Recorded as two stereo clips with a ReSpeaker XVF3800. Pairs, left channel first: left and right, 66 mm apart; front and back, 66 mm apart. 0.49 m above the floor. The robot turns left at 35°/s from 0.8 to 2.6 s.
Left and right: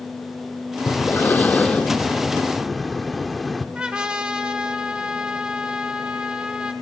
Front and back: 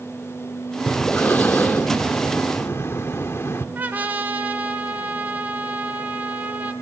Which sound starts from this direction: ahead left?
Breathing, at 0.9 s.